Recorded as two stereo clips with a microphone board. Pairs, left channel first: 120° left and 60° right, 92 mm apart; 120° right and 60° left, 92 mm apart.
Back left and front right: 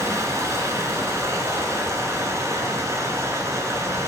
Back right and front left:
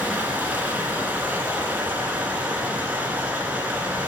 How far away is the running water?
About 0.9 m.